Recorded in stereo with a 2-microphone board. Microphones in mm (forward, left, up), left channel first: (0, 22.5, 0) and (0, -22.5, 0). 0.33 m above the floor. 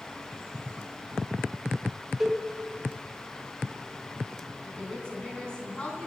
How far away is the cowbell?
About 1.1 m.